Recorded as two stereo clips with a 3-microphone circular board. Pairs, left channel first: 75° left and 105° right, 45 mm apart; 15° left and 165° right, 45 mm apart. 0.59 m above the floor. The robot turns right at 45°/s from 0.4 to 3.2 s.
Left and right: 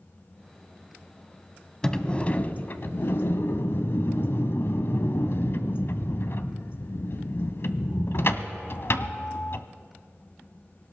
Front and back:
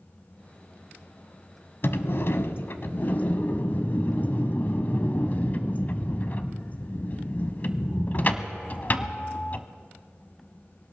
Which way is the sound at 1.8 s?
Straight ahead.